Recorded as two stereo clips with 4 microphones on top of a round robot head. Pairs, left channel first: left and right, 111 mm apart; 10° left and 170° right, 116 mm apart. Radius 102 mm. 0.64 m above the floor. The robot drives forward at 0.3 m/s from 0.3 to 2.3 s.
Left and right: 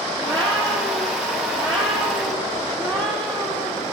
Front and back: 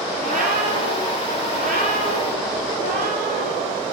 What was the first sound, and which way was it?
A cat meowing, 150° right.